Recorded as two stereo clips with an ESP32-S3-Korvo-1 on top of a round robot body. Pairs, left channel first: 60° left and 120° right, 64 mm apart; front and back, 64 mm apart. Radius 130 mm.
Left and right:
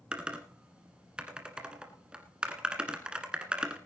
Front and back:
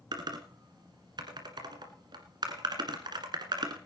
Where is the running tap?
No running tap in this recording.